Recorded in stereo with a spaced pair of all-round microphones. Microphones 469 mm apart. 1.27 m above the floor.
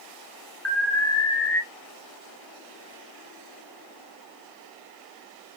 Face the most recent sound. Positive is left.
turn(degrees=30)  # may be behind; listen again after turning